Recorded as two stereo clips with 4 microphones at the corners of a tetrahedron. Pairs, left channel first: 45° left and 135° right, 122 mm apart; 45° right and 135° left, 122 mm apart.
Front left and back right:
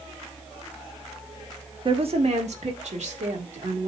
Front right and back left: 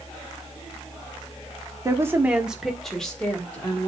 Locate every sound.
1.9 s a woman speaking: 170° right, 1.1 m; by 3.9 s 120° right, 2.5 m